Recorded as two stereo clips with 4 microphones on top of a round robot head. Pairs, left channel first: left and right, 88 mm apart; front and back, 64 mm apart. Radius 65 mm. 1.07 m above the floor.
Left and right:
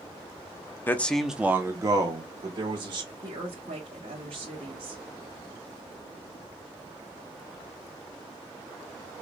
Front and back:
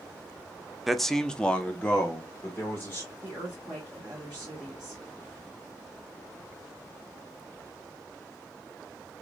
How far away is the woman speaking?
About 2 m.